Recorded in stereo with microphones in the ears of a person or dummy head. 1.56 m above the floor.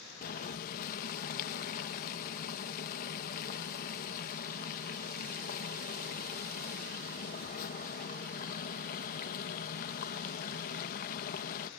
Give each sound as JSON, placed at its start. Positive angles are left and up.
{"t": 0.2, "sound": "boiling", "side_deg": 50}